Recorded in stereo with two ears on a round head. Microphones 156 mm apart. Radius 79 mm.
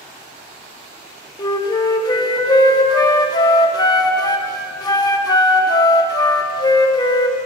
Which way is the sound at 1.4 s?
25° left (ahead or behind).